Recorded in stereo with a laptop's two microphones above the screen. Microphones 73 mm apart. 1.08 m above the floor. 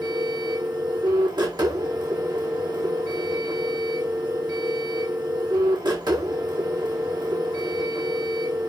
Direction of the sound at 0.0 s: 70° right (ahead or behind).